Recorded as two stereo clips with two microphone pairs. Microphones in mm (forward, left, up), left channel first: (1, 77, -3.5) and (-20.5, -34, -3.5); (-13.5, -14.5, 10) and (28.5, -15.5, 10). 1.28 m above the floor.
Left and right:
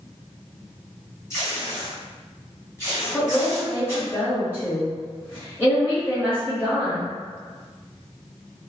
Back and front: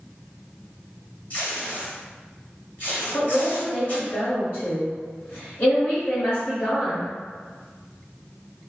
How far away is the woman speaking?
About 1.3 m.